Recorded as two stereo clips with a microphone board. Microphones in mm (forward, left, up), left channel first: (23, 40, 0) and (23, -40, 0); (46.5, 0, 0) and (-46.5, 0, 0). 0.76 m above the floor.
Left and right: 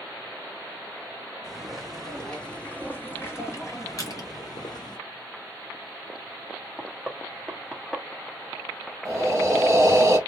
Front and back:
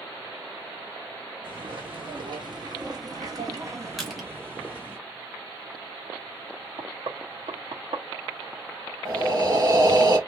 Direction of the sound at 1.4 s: 175° right.